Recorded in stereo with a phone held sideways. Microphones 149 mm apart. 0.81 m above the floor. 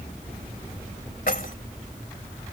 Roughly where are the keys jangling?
Left.